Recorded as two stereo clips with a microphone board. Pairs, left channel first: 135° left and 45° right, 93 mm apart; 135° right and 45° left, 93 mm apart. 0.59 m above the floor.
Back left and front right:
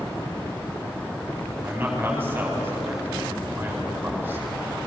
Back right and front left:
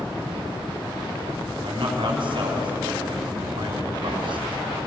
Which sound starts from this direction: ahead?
A man speaking, at 1.6 s.